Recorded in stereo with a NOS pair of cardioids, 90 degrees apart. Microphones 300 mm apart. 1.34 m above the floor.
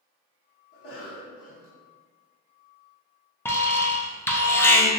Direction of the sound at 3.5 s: 10° left.